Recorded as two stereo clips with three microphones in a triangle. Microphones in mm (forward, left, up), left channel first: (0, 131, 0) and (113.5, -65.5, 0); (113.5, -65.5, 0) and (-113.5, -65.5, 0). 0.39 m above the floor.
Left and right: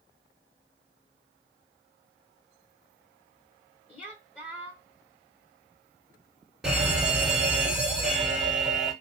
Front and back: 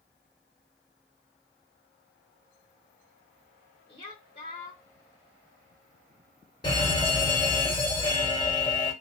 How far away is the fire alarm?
About 1.9 m.